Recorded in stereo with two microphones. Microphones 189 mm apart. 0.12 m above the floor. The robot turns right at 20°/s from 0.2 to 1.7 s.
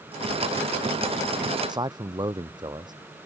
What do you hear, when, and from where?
1.7 s a man speaking: 20° right (ahead or behind)